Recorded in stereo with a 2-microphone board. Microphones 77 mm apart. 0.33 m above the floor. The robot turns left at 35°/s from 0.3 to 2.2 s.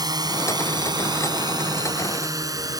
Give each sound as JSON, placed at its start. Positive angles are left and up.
{"t": 0.0, "sound": "a drone", "side_deg": -60}